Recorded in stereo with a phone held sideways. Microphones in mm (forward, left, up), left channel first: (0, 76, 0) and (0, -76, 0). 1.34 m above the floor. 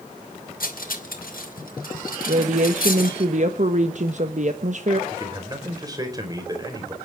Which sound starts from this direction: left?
Cutlery clinking, at 0.6 s.